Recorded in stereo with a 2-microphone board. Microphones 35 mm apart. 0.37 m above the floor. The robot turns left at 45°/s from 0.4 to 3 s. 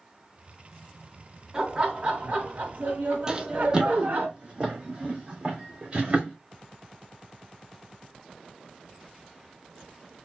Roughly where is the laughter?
Ahead.